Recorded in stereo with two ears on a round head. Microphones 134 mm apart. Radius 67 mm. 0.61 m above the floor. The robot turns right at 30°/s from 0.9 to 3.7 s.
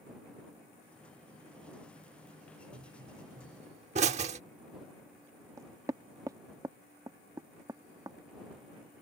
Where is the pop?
65° right (ahead or behind); by 4.4 s 50° right (ahead or behind).